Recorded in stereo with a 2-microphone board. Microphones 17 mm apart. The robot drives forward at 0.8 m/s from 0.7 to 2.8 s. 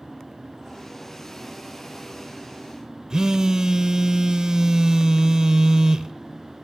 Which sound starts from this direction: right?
A phone buzzing, at 3.1 s.